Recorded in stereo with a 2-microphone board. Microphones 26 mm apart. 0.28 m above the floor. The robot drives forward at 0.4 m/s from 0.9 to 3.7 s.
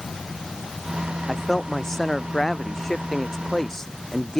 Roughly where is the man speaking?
Centre.